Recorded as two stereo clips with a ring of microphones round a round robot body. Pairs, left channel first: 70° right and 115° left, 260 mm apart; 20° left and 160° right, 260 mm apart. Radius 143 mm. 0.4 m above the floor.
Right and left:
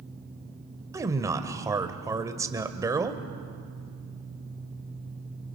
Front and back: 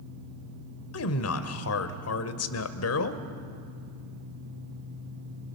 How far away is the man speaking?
About 1.5 m.